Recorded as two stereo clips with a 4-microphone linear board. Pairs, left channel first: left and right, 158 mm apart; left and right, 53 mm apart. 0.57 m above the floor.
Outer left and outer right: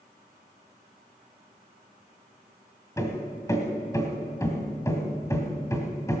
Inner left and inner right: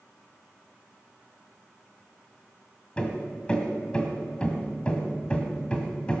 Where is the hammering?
20° left (ahead or behind), 1.9 m.